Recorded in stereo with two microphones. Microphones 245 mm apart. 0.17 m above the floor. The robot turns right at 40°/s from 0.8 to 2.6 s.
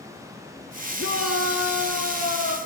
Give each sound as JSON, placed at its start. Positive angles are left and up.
{"t": 1.0, "sound": "a shout", "azimuth_deg": 65, "distance_m": 3.5}